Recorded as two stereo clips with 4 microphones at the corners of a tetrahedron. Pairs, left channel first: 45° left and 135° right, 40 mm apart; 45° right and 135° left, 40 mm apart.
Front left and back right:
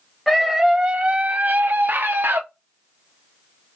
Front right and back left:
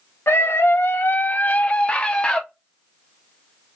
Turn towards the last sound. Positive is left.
turn(degrees=-115)